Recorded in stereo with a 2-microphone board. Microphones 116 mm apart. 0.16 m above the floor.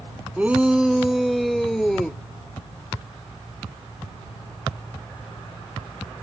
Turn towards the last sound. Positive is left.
turn(degrees=5)  # may be behind; listen again after turning